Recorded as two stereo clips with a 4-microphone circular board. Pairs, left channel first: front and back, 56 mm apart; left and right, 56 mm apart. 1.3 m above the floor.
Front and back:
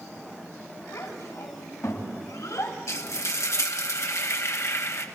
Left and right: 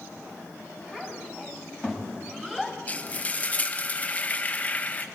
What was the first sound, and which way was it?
A child speaking, 20° right.